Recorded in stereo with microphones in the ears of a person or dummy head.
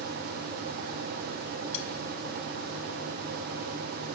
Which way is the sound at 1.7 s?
40° left (ahead or behind).